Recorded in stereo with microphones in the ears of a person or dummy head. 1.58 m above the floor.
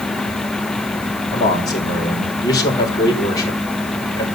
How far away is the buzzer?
I don't hear a buzzer.